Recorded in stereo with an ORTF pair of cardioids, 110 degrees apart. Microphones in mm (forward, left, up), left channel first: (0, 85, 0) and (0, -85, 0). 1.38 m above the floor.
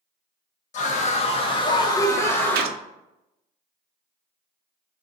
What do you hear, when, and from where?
0.7 s a scream: 45° left, 1.4 m; by 2.8 s 5° left, 1.6 m
2.5 s a gunshot: 70° right, 0.5 m